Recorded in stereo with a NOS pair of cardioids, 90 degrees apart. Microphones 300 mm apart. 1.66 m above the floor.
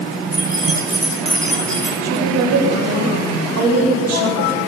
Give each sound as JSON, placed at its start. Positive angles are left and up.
{"t": 0.3, "sound": "keys jangling", "azimuth_deg": -5, "distance_m": 8.5}
{"t": 2.0, "sound": "a woman speaking", "azimuth_deg": -60, "distance_m": 6.0}